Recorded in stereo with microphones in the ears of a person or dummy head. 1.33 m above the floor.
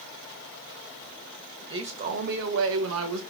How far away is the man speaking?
About 0.8 m.